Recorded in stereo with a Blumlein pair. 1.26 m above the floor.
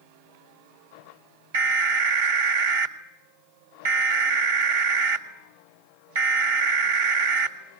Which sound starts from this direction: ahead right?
An alarm, at 1.5 s.